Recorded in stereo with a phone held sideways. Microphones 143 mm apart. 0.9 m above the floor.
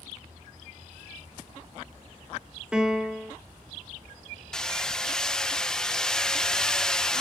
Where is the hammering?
5° left (ahead or behind), 0.6 m.